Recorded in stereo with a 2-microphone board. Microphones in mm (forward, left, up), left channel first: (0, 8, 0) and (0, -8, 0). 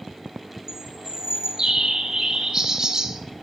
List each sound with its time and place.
0.7 s a bird: 40° right (ahead or behind), 0.7 m